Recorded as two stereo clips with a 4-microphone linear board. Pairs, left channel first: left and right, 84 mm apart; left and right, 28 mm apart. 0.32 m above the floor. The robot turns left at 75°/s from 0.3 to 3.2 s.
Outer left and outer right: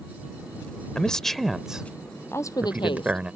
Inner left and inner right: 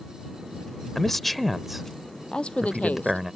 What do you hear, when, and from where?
0.9 s a man speaking: 10° left (ahead or behind); by 3.3 s 15° right (ahead or behind)
2.3 s a woman speaking: 150° left; by 3.4 s 85° left